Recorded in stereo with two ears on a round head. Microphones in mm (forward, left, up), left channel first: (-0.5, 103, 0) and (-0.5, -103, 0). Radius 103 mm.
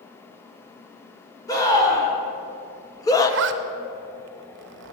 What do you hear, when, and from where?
1.5 s a scream: 15° left (ahead or behind), 3 m
3.3 s a zipper: 55° right (ahead or behind), 0.7 m